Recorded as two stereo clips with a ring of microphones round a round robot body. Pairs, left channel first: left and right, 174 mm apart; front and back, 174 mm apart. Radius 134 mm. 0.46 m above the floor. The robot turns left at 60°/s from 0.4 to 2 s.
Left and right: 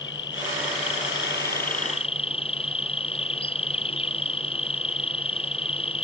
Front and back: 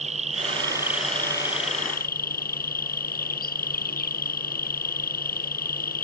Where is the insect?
130° left; by 6.0 s 35° left.